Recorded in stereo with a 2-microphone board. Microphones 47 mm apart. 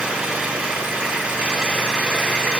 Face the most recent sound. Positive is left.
turn(degrees=-25)  # may be behind; listen again after turning